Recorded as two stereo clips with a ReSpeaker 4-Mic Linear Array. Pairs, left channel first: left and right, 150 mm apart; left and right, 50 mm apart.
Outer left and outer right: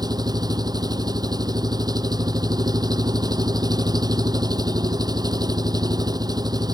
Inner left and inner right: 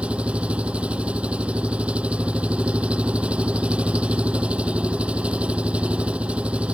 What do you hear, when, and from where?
0.0 s an engine running: 25° right (ahead or behind)